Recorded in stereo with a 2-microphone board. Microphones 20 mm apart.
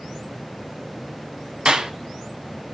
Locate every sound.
1.6 s a clap: 40° right (ahead or behind), 1.5 m